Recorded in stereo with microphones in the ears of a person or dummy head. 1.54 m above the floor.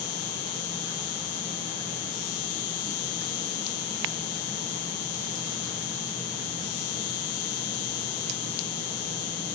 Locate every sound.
0.0 s an insect: 75° left (ahead or behind)